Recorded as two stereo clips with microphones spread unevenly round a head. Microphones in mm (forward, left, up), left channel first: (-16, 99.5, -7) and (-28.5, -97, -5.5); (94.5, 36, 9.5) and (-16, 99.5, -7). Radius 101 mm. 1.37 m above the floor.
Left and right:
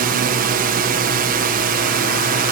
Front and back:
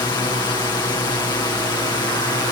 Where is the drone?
90° right.